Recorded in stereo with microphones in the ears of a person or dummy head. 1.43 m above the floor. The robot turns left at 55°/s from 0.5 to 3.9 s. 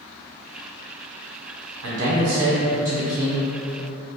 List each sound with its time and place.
1.8 s a man speaking: 95° right, 0.7 m; by 3.5 s 170° left, 0.7 m